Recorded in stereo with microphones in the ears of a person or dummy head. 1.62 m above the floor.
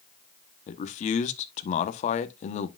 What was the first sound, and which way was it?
A man speaking, 45° left (ahead or behind).